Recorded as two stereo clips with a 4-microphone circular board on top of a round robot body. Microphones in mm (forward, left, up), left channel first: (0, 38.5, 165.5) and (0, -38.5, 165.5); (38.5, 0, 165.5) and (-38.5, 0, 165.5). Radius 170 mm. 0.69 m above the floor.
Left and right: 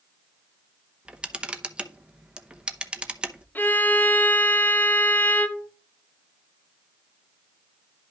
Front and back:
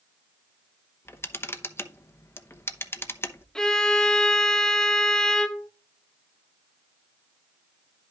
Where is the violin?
70° left, 1.0 m.